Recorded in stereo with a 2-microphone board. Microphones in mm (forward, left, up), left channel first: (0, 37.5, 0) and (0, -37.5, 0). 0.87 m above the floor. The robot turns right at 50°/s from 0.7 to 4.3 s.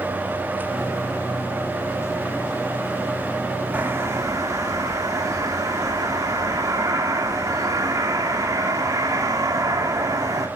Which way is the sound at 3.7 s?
20° right (ahead or behind).